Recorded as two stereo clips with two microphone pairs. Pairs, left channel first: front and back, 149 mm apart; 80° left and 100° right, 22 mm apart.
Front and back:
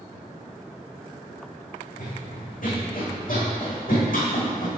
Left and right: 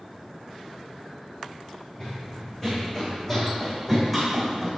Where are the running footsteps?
20° left, 2.5 m; by 4.7 s 15° right, 2.5 m.